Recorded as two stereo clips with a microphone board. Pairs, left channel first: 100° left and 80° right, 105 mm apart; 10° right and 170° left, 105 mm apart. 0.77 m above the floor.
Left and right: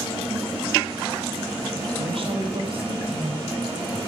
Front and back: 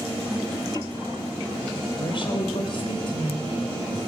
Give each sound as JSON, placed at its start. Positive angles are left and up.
{"t": 2.0, "sound": "a woman speaking", "azimuth_deg": -50, "distance_m": 3.5}